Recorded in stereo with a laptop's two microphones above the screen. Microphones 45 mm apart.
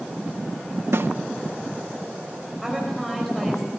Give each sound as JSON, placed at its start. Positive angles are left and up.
{"t": 0.9, "sound": "a snare drum", "side_deg": -65, "distance_m": 1.0}
{"t": 2.6, "sound": "a woman speaking", "side_deg": 5, "distance_m": 4.5}